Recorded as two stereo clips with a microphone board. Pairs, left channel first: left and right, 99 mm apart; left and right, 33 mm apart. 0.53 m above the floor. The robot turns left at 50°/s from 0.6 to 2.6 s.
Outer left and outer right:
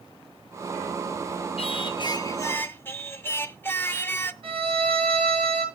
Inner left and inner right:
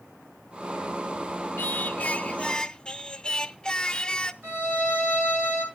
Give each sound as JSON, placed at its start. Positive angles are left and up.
{"t": 1.6, "sound": "singing", "azimuth_deg": 75, "distance_m": 0.5}
{"t": 4.4, "sound": "a violin", "side_deg": -65, "distance_m": 7.5}